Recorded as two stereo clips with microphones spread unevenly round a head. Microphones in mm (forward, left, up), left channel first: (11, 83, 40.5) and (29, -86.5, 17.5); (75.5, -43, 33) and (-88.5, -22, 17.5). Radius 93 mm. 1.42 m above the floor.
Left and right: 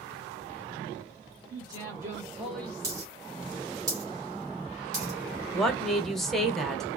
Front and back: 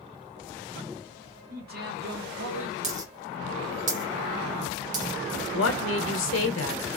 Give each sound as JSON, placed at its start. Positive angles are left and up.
{"t": 1.5, "sound": "a man speaking", "azimuth_deg": -155, "distance_m": 1.6}
{"t": 2.8, "sound": "a dropped coin", "azimuth_deg": -160, "distance_m": 0.9}
{"t": 5.5, "sound": "a woman speaking", "azimuth_deg": 5, "distance_m": 0.7}